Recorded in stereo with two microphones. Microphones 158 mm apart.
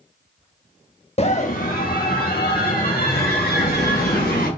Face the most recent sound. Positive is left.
turn(degrees=70)  # may be behind; listen again after turning